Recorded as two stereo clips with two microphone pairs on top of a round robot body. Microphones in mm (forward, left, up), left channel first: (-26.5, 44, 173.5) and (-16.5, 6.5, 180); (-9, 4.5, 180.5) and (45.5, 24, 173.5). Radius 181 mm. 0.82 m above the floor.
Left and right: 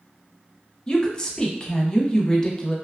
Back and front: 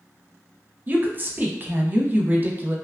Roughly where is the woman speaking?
Ahead left.